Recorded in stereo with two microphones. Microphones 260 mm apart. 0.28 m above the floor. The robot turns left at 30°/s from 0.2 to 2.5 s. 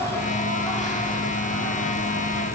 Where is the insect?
170° left, 2 m; by 2.6 s 105° left, 2 m.